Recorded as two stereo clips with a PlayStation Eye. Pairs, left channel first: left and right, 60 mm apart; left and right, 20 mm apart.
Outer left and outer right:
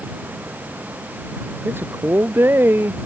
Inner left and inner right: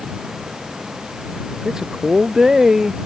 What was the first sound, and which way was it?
A man speaking, 35° right (ahead or behind).